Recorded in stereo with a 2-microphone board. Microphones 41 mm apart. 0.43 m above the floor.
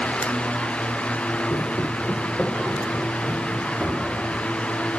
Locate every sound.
1.5 s footsteps: 65° left (ahead or behind), 0.9 m; by 4.5 s centre (ahead or behind), 3 m